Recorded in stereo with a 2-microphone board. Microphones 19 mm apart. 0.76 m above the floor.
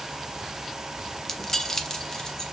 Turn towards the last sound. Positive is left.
turn(degrees=25)  # may be behind; listen again after turning